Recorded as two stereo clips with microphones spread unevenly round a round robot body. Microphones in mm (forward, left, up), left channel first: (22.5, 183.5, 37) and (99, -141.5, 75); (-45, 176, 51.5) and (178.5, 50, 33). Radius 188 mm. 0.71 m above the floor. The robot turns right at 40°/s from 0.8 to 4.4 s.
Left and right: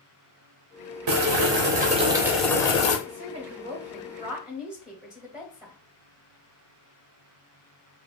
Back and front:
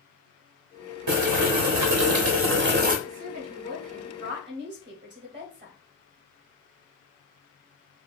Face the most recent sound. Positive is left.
turn(degrees=15)